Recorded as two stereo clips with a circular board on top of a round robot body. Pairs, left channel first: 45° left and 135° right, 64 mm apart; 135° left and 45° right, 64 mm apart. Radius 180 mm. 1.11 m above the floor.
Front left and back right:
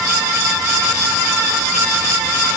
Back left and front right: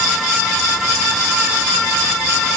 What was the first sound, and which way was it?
Only background noise.